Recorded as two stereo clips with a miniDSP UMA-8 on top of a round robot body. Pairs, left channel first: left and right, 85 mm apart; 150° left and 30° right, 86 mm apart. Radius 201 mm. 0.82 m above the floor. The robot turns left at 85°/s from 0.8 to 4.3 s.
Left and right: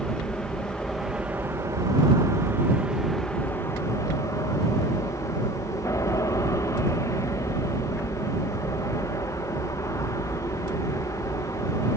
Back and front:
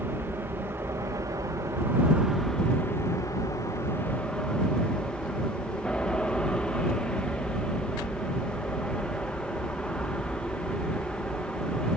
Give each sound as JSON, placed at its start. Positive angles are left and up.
{"t": 0.0, "sound": "an aircraft", "azimuth_deg": 15}